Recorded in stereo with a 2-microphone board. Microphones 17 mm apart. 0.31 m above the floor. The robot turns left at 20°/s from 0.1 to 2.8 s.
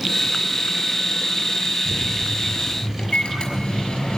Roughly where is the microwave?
Left.